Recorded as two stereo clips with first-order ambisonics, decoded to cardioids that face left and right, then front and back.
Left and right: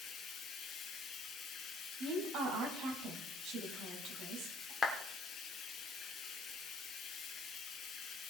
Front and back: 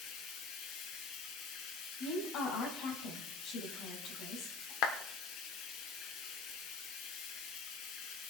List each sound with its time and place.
0.0 s running water: 30° left, 2.5 m
2.0 s a woman speaking: 50° right, 4 m
4.8 s a clap: 20° left, 1.6 m